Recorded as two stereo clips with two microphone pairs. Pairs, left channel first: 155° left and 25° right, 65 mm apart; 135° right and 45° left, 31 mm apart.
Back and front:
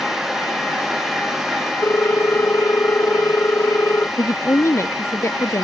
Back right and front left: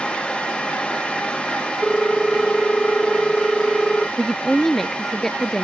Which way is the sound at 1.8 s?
160° left.